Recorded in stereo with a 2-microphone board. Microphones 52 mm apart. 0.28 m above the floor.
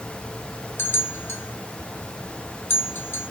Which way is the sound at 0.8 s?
45° left (ahead or behind).